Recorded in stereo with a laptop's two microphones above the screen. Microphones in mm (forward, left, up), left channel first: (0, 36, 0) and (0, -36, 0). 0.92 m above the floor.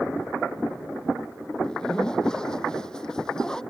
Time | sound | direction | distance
1.6 | a zipper | 10° left (ahead or behind) | ?